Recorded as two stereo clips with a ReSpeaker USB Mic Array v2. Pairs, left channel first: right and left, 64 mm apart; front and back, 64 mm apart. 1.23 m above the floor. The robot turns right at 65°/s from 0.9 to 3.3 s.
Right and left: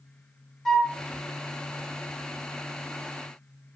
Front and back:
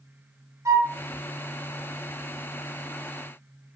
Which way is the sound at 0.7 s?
175° right.